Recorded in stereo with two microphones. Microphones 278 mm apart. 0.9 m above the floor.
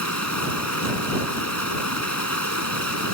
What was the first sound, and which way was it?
Running water, 85° left.